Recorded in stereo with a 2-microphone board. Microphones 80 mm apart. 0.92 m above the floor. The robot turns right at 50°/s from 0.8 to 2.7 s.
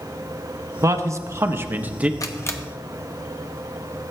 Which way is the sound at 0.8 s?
90° right.